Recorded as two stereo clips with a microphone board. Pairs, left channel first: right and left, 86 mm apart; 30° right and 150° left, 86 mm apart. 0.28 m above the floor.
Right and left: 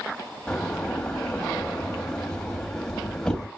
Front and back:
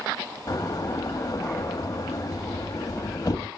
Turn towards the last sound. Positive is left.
turn(degrees=-10)